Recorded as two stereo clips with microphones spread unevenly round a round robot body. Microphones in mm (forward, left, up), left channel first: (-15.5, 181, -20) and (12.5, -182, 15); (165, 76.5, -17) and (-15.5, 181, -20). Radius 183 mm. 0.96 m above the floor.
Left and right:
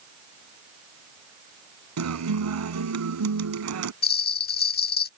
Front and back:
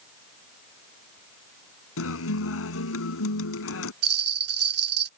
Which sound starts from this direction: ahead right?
A guitar, at 2.0 s.